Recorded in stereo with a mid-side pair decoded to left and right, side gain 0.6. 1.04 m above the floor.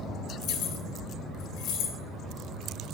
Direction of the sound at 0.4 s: 65° left.